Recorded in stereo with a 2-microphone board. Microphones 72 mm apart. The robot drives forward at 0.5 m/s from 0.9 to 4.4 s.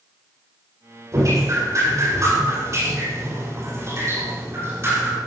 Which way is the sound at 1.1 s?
50° right (ahead or behind).